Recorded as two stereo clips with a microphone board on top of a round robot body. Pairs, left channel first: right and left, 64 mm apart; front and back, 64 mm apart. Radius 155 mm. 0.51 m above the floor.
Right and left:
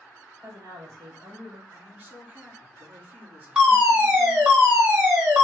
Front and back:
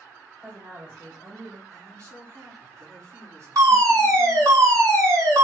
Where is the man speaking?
150° left, 2.5 m.